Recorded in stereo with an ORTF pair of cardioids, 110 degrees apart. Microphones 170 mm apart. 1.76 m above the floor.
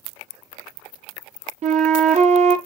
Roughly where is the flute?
Ahead right.